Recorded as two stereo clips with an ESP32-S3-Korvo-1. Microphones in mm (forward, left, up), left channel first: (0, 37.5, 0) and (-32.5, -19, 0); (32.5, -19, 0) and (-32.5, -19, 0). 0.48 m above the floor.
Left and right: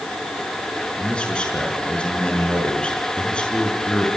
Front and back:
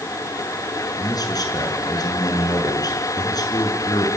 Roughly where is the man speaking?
Ahead.